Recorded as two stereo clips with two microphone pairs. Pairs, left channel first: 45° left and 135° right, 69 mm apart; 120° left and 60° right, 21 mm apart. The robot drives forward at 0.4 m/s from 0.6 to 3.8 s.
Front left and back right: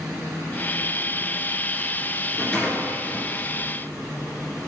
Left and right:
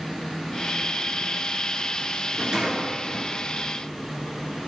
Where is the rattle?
25° right, 2 m; by 3.3 s 35° right, 2.0 m.